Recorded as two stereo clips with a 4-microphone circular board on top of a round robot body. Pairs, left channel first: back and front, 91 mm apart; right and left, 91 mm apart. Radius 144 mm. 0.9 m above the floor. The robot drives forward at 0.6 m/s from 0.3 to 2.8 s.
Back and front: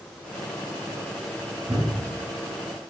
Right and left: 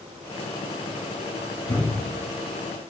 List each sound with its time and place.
1.7 s a thud: 60° right, 1.7 m; by 2.2 s 70° right, 1.6 m